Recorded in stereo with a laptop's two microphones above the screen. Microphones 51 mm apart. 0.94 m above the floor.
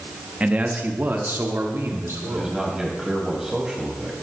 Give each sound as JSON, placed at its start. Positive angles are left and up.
{"t": 0.4, "sound": "a man speaking", "side_deg": -25, "distance_m": 1.1}
{"t": 2.3, "sound": "a man speaking", "side_deg": -10, "distance_m": 5.5}